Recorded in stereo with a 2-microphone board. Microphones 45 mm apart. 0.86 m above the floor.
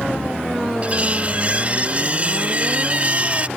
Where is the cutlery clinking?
35° right (ahead or behind).